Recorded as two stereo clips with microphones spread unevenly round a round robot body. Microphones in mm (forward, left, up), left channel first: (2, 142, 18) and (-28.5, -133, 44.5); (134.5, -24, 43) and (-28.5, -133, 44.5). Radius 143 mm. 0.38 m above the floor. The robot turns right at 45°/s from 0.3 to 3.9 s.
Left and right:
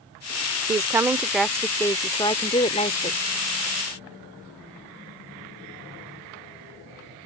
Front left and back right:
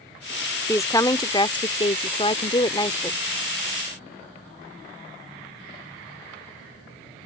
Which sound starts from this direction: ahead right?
A woman speaking, at 0.7 s.